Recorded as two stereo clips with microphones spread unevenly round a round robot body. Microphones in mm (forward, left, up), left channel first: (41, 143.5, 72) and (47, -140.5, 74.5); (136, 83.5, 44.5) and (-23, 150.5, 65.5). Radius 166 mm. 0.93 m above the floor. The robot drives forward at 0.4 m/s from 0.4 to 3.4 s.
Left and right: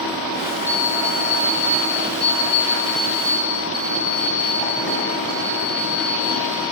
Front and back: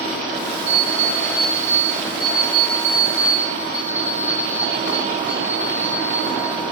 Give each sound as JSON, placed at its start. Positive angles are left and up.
{"t": 0.7, "sound": "an alarm clock", "azimuth_deg": 175, "distance_m": 1.2}